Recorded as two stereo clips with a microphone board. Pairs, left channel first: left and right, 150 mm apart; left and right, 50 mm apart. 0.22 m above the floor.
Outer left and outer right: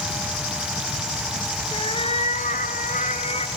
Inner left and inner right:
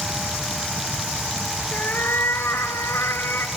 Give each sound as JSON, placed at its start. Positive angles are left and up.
{"t": 1.7, "sound": "a cat meowing", "side_deg": 35, "distance_m": 1.9}